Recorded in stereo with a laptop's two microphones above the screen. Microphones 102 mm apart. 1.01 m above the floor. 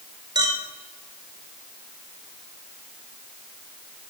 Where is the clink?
45° right (ahead or behind), 1.7 m.